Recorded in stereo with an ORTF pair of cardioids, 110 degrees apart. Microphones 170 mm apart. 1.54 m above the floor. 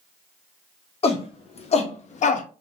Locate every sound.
1.0 s a shout: 35° left, 2.0 m; by 2.5 s 50° left, 0.8 m